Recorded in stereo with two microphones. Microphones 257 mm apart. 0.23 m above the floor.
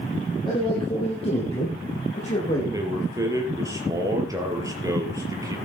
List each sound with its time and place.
0.5 s a man speaking: 20° left (ahead or behind), 5.5 m; by 2.6 s 30° left (ahead or behind), 7.5 m
2.7 s a man speaking: 15° right (ahead or behind), 5 m